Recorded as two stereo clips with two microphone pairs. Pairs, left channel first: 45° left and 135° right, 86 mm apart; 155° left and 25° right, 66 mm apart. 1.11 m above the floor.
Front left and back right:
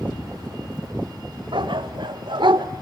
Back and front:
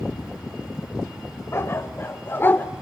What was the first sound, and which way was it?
A dog barking, 155° right.